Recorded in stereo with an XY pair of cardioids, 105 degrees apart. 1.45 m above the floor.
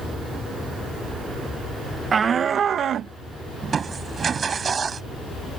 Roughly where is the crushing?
Ahead right.